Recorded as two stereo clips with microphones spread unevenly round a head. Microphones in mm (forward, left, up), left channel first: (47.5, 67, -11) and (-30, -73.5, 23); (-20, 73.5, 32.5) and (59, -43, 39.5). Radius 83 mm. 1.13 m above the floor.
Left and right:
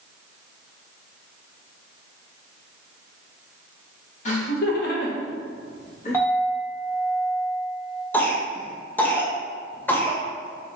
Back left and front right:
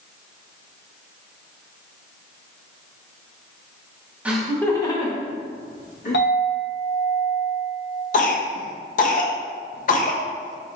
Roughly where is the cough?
Behind left.